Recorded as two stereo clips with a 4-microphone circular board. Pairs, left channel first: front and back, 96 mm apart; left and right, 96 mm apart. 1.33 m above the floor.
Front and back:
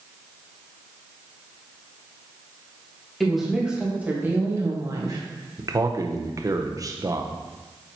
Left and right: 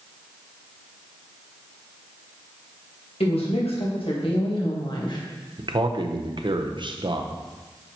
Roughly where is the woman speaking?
Left.